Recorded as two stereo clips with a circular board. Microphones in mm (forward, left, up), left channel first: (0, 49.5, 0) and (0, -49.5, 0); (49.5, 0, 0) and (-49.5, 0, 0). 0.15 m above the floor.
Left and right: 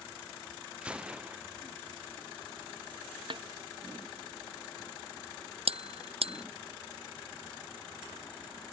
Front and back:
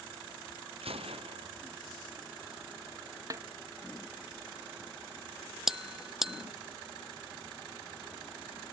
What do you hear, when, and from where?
0.8 s a gunshot: 170° right
3.3 s a snare drum: 125° right
5.7 s a bell: 95° right